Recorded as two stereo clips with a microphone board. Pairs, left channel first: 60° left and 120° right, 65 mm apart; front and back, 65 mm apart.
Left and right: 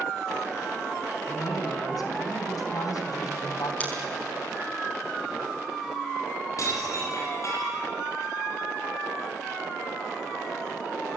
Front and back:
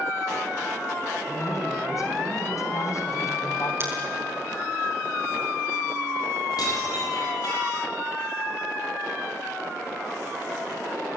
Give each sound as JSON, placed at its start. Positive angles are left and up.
{"t": 1.3, "sound": "a woman speaking", "azimuth_deg": 35, "distance_m": 4.0}
{"t": 3.8, "sound": "scissors", "azimuth_deg": 130, "distance_m": 6.5}
{"t": 6.6, "sound": "dishes clattering", "azimuth_deg": 20, "distance_m": 9.5}